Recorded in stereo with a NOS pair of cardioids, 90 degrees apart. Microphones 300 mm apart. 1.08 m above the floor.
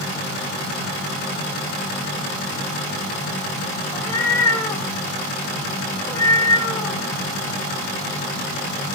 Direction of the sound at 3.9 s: 10° left.